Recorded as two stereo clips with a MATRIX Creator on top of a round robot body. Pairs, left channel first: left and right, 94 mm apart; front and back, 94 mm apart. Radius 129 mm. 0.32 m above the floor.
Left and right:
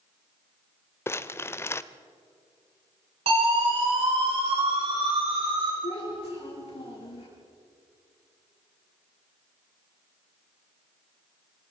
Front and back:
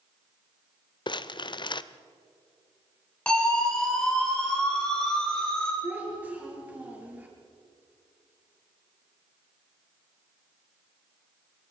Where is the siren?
80° right, 8 m.